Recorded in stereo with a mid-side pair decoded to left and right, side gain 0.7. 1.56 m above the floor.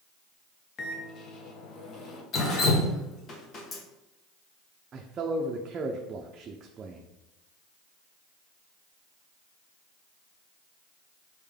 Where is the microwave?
40° left, 0.9 m.